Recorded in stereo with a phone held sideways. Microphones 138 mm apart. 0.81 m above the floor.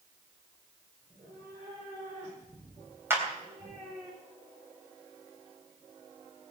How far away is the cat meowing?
About 10 m.